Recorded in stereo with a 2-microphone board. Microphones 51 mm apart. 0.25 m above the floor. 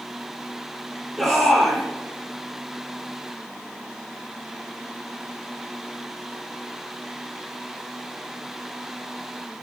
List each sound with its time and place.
1.2 s a shout: centre (ahead or behind), 8.5 m